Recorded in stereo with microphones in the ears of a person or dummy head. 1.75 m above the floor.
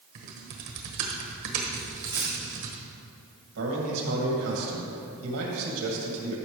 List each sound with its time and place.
0.1 s typing on a keyboard: 60° right (ahead or behind), 1.3 m
1.8 s a dropped coin: 15° right (ahead or behind), 1.3 m
3.5 s a man speaking: 85° right, 2.5 m